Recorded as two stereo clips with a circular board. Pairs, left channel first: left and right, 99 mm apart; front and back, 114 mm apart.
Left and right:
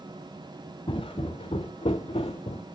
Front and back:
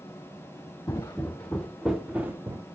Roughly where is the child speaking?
I don't hear a child speaking.